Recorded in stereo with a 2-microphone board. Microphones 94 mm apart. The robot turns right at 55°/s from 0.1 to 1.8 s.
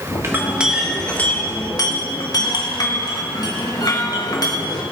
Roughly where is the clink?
Ahead right.